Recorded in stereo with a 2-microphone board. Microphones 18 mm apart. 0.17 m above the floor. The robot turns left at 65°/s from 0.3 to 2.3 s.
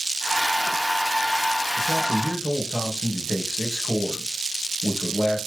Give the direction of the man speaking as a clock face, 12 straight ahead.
5 o'clock.